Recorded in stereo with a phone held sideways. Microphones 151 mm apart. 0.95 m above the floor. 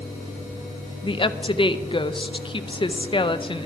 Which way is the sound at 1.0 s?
35° left (ahead or behind).